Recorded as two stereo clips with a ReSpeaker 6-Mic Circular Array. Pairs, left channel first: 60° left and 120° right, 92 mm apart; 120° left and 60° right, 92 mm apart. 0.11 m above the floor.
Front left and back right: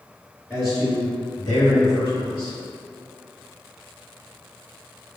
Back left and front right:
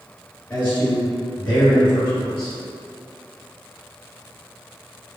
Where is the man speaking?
70° left, 1.7 m; by 2.6 s 30° left, 2.5 m.